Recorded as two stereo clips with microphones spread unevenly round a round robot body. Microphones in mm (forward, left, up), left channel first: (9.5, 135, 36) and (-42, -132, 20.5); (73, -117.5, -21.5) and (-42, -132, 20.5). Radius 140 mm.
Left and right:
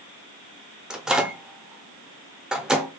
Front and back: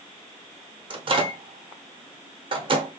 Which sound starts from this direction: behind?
A microwave, at 0.9 s.